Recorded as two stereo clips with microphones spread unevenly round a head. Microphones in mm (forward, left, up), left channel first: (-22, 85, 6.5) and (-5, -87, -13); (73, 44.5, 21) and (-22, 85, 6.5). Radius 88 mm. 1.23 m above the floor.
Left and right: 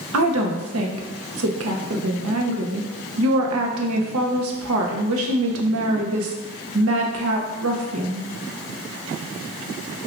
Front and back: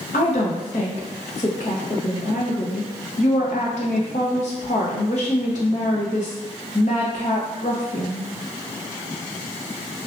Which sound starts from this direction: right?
A woman speaking, at 0.1 s.